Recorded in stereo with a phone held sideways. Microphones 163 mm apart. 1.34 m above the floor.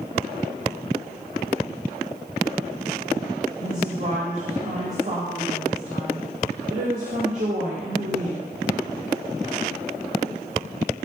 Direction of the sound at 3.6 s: 55° right (ahead or behind).